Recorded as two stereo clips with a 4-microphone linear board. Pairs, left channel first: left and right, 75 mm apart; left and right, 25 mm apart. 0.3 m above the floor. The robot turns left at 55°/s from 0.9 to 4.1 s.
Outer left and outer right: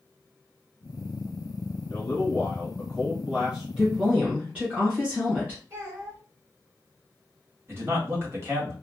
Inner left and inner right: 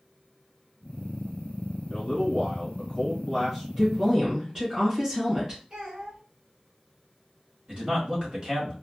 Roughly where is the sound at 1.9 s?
Left.